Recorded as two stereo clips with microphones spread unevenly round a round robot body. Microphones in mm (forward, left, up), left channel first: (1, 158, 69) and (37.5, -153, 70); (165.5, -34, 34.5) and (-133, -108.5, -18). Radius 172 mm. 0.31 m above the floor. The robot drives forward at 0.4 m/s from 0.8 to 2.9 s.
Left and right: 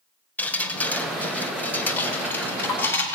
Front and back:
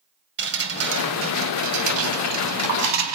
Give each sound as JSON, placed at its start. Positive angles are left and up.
{"t": 0.4, "sound": "dripping", "azimuth_deg": 180, "distance_m": 1.6}